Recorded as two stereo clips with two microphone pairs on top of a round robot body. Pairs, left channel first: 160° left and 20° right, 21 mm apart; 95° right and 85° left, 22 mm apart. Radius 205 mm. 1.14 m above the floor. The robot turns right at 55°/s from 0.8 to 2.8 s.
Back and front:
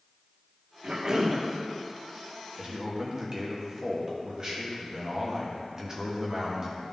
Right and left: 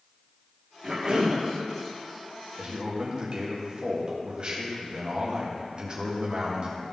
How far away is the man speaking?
About 1.7 m.